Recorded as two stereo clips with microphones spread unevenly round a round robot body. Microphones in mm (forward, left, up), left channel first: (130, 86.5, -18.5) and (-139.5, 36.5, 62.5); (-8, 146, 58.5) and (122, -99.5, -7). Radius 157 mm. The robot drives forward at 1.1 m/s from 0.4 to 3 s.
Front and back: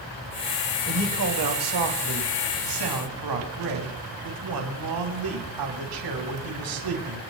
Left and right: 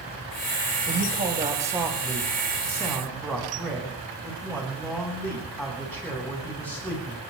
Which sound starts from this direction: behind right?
A man speaking, at 0.9 s.